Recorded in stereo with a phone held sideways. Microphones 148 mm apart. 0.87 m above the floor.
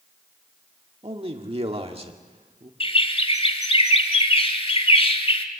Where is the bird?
40° left (ahead or behind), 1.7 m.